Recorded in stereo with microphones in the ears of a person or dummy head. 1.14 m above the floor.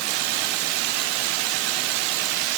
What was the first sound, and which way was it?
Only background noise.